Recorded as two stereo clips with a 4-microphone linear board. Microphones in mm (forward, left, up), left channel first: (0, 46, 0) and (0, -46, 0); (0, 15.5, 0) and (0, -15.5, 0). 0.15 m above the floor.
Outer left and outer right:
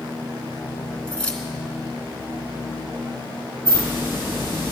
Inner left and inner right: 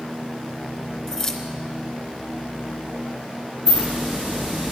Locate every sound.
1.1 s keys jangling: 15° left (ahead or behind), 1.3 m
3.6 s a hiss: 30° right (ahead or behind), 4.5 m